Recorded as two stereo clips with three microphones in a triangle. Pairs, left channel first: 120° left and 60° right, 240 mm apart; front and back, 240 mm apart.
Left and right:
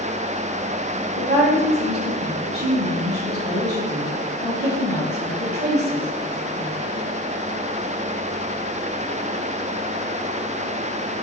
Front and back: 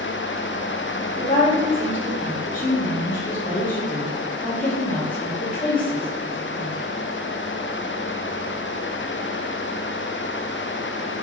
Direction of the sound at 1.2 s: 40° right.